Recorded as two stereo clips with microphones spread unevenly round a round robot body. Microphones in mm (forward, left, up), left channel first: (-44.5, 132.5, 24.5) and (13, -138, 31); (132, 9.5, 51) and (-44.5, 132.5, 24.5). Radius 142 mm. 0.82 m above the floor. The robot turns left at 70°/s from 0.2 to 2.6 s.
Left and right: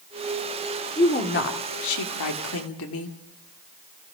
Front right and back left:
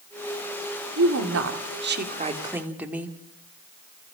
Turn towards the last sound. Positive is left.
turn(degrees=65)